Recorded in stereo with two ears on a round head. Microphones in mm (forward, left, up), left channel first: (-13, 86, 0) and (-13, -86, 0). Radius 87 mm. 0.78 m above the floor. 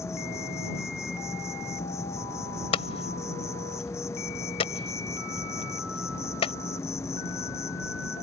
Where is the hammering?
30° left (ahead or behind).